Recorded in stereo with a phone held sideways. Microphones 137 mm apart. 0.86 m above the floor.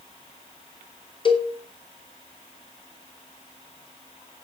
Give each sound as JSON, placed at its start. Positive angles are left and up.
{"t": 1.2, "sound": "a cowbell", "side_deg": 35, "distance_m": 2.5}